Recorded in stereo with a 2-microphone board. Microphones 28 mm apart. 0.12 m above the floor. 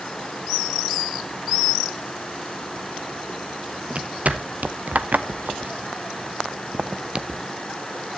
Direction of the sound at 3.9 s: 55° right (ahead or behind).